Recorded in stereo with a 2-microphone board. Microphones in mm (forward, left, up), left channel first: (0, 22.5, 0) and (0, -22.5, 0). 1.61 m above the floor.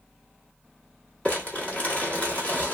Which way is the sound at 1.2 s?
30° left (ahead or behind).